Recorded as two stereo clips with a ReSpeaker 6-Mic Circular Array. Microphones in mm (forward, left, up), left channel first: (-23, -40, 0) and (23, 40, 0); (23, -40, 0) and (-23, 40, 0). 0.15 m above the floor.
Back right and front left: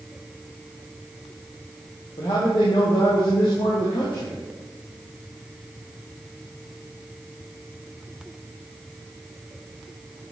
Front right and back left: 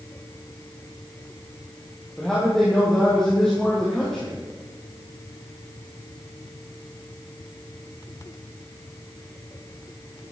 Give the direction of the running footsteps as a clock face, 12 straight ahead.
No running footsteps in this recording.